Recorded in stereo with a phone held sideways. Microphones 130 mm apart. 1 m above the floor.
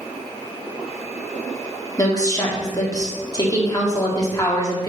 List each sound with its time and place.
2.0 s a woman speaking: 30° left (ahead or behind), 1.9 m